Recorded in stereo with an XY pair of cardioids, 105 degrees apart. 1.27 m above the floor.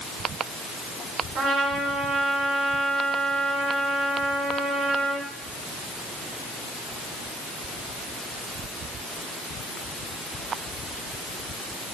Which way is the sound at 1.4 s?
70° right.